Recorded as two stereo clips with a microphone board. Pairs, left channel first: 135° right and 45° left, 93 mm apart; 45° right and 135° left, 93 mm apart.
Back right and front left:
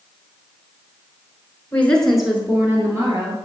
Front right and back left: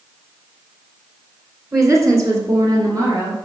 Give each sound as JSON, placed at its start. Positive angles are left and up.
{"t": 1.7, "sound": "a woman speaking", "azimuth_deg": 170, "distance_m": 1.5}